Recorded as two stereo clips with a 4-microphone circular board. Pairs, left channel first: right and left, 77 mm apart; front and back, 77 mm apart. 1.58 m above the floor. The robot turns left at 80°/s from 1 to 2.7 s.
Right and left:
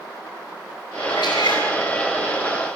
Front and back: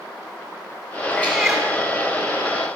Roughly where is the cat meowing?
Ahead right.